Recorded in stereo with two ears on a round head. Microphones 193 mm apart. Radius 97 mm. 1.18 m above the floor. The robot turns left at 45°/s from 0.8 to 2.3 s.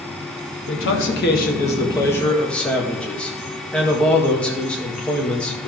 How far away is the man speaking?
About 1.8 m.